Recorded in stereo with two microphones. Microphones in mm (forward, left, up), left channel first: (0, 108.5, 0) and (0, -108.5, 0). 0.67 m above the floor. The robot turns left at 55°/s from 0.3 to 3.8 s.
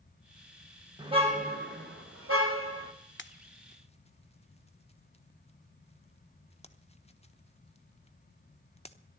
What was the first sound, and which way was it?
A car horn, 20° right.